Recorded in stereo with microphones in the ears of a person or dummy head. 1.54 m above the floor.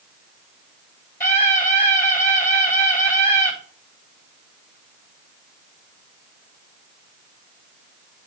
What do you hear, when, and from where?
1.2 s a scream: 5° left (ahead or behind), 4 m